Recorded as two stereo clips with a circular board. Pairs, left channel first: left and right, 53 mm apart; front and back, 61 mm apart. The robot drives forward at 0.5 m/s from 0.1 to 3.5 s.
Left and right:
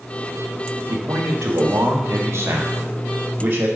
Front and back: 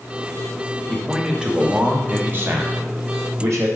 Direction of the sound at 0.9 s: 90° right.